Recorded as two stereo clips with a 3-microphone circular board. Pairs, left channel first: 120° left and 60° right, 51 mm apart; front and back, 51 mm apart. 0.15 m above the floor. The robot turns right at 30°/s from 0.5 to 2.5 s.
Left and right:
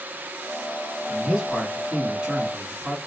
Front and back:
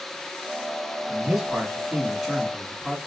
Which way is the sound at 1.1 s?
130° right.